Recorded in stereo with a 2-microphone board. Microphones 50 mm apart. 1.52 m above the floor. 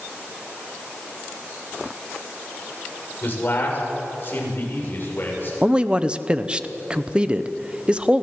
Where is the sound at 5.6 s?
20° right (ahead or behind), 0.9 m.